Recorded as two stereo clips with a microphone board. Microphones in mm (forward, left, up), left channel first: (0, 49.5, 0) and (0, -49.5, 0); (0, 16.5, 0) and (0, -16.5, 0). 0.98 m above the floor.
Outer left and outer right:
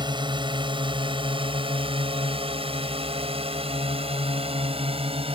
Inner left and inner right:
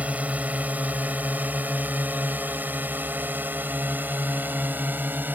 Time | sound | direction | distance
0.0 | a drone | 55° right (ahead or behind) | ?